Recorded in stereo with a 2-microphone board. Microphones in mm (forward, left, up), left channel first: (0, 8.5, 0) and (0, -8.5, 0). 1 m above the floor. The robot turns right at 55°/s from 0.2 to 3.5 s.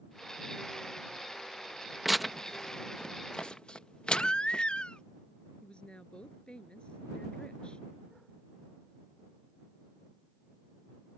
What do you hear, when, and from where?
2.0 s tearing paper: 10° right (ahead or behind); by 4.6 s 70° left (ahead or behind)
4.1 s a baby crying: 80° left
5.6 s a woman speaking: 70° left (ahead or behind)